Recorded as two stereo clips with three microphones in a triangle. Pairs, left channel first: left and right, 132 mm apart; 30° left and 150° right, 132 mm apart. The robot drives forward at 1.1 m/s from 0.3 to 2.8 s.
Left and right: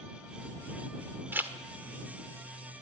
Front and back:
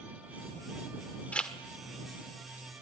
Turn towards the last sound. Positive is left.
turn(degrees=-165)